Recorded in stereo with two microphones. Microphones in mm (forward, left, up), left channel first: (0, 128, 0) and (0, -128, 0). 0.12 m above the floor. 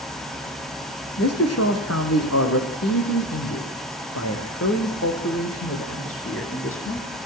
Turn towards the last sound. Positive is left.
turn(degrees=50)  # may be behind; listen again after turning